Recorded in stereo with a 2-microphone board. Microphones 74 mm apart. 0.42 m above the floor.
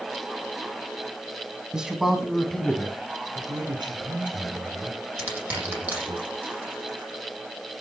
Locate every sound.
1.7 s a man speaking: 10° right (ahead or behind), 3 m; by 3.0 s 15° left (ahead or behind), 3 m
3.4 s a man speaking: 75° right (ahead or behind), 4.5 m
5.2 s crushing: 20° right (ahead or behind), 9.5 m